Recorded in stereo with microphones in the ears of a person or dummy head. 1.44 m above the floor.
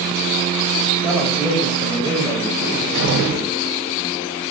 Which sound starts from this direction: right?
A cupboard door, at 2.6 s.